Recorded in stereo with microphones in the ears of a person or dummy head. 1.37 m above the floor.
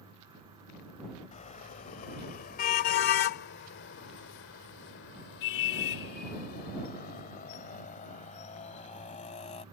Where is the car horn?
35° left (ahead or behind); by 9.7 s 30° left (ahead or behind).